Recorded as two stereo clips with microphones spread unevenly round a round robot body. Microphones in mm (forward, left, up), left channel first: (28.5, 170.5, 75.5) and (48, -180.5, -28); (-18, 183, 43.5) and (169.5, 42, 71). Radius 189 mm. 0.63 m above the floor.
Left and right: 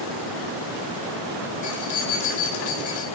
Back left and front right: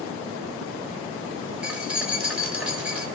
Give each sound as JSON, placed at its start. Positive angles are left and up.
{"t": 1.6, "sound": "keys jangling", "azimuth_deg": 50, "distance_m": 1.9}